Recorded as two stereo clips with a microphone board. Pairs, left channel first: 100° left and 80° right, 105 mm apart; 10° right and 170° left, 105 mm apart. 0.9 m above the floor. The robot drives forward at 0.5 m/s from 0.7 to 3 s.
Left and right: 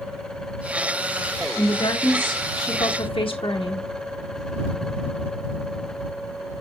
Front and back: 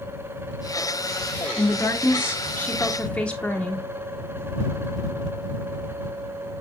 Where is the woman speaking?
50° left, 2 m; by 3.9 s 70° left, 1.7 m.